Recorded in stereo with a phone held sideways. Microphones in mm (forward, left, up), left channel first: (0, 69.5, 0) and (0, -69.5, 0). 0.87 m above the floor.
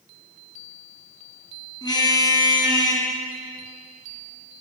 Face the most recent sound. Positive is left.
turn(degrees=30)  # may be behind; listen again after turning